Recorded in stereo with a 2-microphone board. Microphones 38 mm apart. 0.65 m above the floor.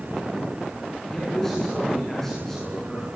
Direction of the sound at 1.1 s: 10° left (ahead or behind).